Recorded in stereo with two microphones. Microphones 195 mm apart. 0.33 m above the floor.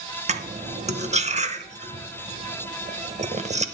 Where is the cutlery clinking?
35° right (ahead or behind), 0.8 m.